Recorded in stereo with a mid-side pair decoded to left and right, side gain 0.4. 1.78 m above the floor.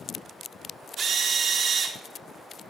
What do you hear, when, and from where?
1.0 s a drill: 55° right, 4.5 m